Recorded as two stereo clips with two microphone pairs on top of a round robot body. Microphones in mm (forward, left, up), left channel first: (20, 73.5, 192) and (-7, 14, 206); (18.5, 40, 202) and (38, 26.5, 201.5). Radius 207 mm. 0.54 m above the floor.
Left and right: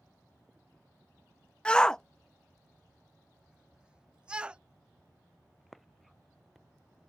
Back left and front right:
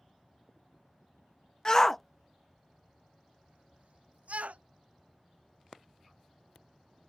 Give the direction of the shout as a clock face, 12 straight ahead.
9 o'clock.